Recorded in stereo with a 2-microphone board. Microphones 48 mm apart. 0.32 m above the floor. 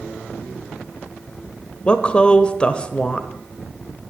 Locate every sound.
1.9 s a woman speaking: 20° left (ahead or behind), 0.9 m